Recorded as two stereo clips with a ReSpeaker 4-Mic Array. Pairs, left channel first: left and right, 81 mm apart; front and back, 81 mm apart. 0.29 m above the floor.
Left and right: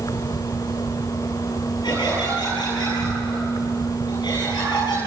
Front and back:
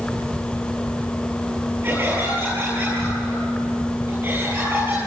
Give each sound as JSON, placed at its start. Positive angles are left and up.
{"t": 0.0, "sound": "an insect", "azimuth_deg": 80, "distance_m": 1.9}
{"t": 1.8, "sound": "laughter", "azimuth_deg": 120, "distance_m": 7.5}